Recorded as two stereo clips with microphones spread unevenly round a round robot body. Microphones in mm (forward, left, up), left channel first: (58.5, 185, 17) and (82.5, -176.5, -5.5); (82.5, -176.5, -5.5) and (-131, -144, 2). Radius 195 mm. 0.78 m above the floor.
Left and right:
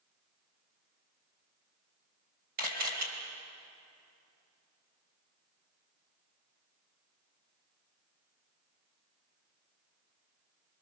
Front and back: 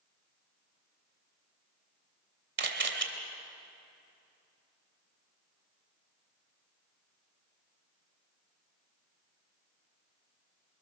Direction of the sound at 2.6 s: 155° right.